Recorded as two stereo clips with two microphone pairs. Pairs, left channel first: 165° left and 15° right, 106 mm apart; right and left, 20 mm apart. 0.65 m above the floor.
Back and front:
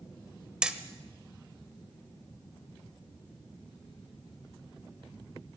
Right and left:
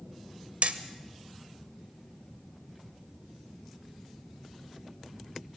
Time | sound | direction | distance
0.6 | hammering | 65° left | 1.5 m